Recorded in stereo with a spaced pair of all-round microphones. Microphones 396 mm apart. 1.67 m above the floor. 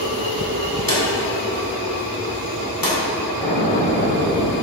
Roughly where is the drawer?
Left.